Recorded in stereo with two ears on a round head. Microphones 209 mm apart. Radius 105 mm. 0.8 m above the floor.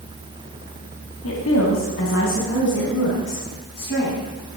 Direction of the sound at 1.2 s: 55° left (ahead or behind).